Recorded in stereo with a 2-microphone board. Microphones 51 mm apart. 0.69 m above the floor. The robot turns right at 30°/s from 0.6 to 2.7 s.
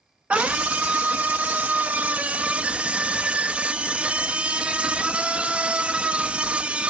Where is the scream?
20° right (ahead or behind), 0.5 m.